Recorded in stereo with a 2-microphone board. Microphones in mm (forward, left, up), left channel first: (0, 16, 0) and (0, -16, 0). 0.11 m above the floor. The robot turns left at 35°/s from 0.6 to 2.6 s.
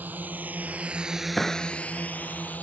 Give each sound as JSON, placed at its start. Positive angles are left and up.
{"t": 0.0, "sound": "a drone", "side_deg": -65}
{"t": 1.4, "sound": "a clap", "side_deg": 10}